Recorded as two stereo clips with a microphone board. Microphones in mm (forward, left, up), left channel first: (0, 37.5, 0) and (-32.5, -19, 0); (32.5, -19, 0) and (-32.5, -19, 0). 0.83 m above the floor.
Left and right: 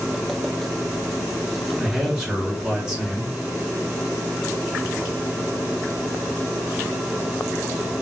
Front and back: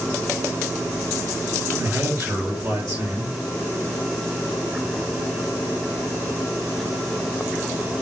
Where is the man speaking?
165° left, 1.9 m.